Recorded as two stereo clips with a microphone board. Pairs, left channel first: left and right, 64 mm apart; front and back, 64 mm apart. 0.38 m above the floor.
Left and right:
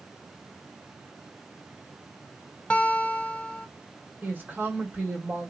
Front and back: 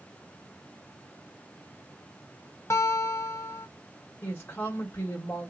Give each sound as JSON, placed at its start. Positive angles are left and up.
{"t": 2.7, "sound": "a guitar", "azimuth_deg": 25, "distance_m": 0.6}
{"t": 4.2, "sound": "a woman speaking", "azimuth_deg": -40, "distance_m": 1.8}